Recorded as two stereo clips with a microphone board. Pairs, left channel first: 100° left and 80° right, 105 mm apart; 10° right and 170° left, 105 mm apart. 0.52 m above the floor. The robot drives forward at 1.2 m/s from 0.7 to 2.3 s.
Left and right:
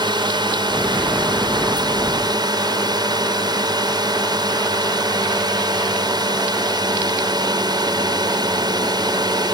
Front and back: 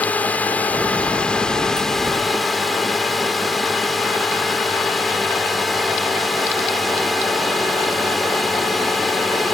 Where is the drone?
80° right; by 9.5 s 100° right.